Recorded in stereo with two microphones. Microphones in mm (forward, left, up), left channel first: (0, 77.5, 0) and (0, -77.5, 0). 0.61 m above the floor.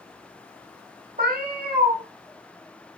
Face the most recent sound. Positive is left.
turn(degrees=-80)